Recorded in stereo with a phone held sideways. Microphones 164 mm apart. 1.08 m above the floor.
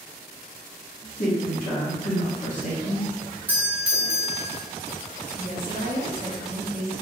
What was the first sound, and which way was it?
A man speaking, 55° left (ahead or behind).